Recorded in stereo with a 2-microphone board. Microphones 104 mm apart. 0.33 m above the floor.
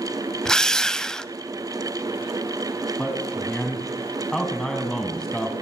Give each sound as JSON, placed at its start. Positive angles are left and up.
{"t": 0.5, "sound": "a drill", "side_deg": 5, "distance_m": 0.7}
{"t": 3.0, "sound": "a man speaking", "side_deg": 5, "distance_m": 2.5}